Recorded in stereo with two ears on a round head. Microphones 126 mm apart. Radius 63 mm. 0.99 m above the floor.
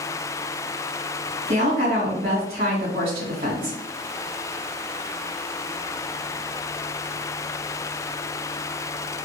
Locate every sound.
1.5 s a woman speaking: 50° right (ahead or behind), 2.0 m